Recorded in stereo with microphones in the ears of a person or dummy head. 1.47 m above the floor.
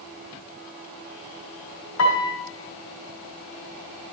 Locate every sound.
2.0 s a piano: 80° left, 2.5 m